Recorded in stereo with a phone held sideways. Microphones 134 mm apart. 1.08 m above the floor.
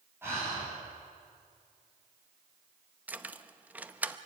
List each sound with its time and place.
0.2 s breathing: 15° right (ahead or behind), 7.5 m
3.1 s keys jangling: 10° right (ahead or behind), 0.7 m